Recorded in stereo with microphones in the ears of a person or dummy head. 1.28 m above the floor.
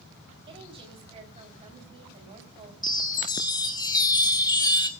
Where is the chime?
20° left (ahead or behind), 1.1 m.